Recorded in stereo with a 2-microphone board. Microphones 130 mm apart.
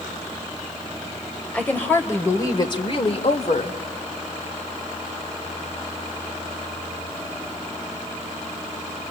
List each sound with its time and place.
1.5 s a woman speaking: 10° left (ahead or behind), 2.5 m; by 3.8 s 60° left (ahead or behind), 1.9 m